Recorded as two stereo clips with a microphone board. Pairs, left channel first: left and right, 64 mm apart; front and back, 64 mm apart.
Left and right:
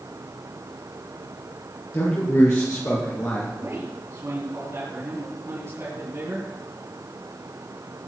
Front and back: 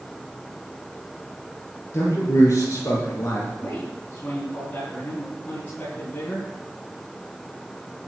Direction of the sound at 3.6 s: 55° right.